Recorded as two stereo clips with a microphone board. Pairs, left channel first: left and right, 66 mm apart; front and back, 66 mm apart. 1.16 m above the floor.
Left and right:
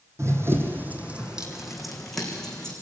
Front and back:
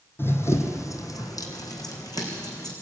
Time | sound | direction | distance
0.2 | running footsteps | 50° right | 2.5 m